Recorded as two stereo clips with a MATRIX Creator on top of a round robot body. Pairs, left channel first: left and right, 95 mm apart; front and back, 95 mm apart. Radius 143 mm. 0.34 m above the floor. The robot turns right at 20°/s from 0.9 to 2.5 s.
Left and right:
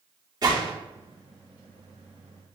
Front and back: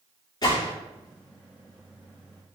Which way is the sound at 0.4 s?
45° right.